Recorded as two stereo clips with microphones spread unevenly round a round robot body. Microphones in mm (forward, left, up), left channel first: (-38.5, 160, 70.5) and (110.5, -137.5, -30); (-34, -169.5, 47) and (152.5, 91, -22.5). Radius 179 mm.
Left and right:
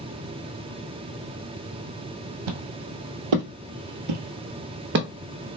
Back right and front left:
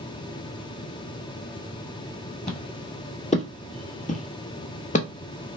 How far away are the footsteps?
About 1.4 m.